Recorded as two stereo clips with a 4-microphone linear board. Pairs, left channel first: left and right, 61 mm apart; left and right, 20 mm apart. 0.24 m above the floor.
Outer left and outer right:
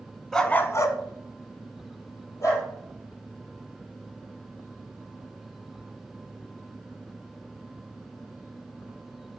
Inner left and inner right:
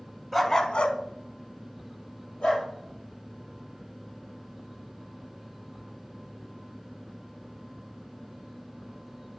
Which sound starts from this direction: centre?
A dog barking, at 0.3 s.